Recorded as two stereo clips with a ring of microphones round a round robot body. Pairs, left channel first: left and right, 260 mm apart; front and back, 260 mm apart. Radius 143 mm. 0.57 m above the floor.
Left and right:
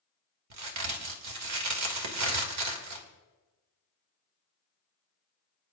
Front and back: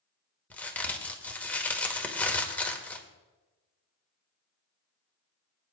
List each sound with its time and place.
0.5 s a crack: 85° right, 2 m